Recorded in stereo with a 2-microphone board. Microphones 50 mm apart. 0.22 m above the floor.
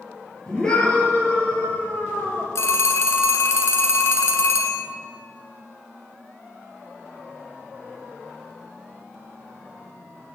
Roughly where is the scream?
Centre.